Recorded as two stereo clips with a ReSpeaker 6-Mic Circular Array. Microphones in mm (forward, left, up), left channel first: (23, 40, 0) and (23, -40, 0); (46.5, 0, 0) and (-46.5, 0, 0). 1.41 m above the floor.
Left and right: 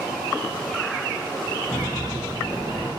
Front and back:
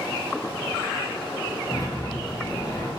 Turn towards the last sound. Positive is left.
turn(degrees=60)